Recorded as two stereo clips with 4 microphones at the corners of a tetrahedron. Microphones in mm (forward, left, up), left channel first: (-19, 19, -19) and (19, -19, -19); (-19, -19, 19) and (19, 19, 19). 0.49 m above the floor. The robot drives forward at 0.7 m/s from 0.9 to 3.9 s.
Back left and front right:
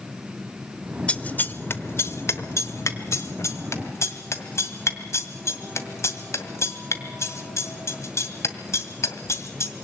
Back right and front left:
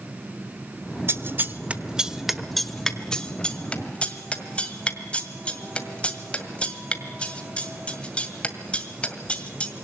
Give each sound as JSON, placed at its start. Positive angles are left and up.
{"t": 1.1, "sound": "scissors", "azimuth_deg": 75, "distance_m": 0.9}